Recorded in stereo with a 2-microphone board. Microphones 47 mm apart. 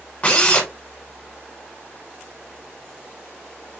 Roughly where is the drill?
Left.